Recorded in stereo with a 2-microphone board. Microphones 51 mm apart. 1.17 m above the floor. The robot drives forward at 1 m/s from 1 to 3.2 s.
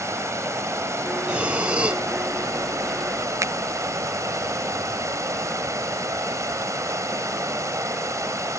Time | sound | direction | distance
0.0 | running water | 70° right (ahead or behind) | ?
1.3 | breathing | 20° right (ahead or behind) | ?
3.4 | a finger snap | 70° right (ahead or behind) | ?